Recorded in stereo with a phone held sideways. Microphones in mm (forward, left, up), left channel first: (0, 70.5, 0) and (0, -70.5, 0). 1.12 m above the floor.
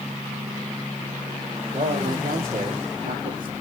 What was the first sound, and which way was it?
A man speaking, 70° right (ahead or behind).